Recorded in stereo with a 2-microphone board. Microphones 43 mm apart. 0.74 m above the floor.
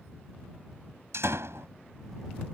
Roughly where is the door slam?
Right.